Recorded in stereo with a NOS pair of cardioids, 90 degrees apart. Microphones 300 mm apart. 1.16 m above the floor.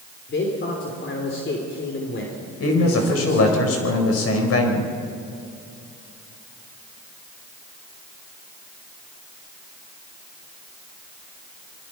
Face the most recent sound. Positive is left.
turn(degrees=55)